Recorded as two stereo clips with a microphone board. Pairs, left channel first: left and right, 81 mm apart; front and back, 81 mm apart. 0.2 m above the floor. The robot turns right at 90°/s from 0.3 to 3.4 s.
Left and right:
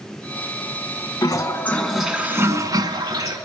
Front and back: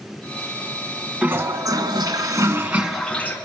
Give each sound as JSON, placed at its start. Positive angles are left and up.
{"t": 1.2, "sound": "a toilet flushing", "azimuth_deg": 110, "distance_m": 1.3}